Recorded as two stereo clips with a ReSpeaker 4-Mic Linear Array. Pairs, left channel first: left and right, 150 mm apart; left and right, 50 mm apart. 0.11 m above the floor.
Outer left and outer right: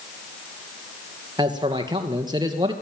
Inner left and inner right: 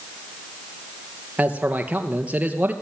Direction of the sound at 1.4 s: 30° right (ahead or behind).